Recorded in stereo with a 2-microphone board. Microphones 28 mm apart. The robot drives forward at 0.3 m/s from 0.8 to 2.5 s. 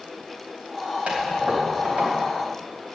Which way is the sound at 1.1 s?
55° right (ahead or behind).